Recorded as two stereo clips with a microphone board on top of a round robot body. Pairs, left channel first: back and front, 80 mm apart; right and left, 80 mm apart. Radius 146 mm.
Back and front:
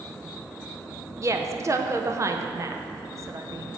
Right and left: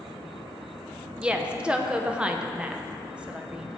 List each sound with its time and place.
1.2 s a woman speaking: 20° left, 0.8 m